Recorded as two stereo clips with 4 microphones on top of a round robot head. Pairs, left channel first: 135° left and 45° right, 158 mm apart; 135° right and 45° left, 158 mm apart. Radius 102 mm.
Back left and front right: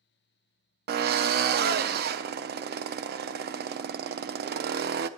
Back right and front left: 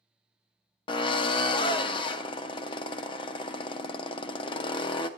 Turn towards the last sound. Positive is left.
turn(degrees=-70)